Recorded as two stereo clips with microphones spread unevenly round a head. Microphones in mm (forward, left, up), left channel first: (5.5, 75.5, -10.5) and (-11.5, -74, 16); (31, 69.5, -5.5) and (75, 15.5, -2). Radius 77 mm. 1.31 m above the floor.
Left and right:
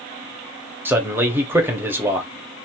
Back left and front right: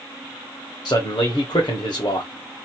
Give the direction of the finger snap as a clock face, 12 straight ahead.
I don't hear a finger snap.